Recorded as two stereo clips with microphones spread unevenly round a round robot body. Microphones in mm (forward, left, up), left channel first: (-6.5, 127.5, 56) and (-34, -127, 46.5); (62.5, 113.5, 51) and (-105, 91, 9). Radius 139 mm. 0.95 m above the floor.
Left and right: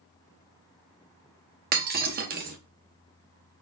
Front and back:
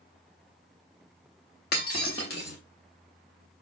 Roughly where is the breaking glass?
Ahead right.